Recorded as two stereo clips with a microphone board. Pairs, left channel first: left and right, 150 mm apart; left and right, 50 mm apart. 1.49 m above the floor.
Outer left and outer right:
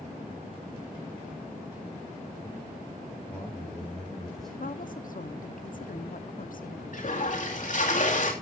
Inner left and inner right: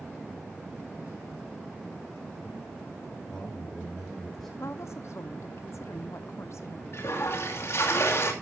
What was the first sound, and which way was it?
A man speaking, 10° left (ahead or behind).